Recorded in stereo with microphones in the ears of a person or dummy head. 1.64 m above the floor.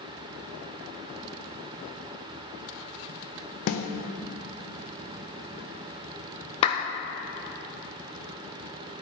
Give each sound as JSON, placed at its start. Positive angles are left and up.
{"t": 3.7, "sound": "a snare drum", "side_deg": 45, "distance_m": 0.6}
{"t": 6.6, "sound": "a clap", "side_deg": 35, "distance_m": 0.6}